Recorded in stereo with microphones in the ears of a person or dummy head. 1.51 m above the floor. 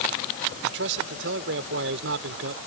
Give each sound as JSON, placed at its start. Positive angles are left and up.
{"t": 0.6, "sound": "a man speaking", "side_deg": -65}